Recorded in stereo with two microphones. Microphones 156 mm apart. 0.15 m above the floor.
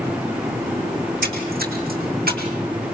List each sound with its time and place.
1.0 s a splash: 75° right (ahead or behind), 3 m